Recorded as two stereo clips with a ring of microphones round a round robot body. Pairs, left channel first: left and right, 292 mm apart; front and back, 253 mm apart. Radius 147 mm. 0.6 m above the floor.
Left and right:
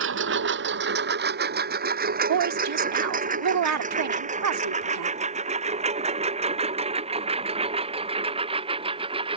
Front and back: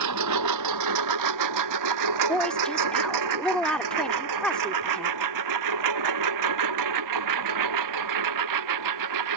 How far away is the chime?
I don't hear a chime.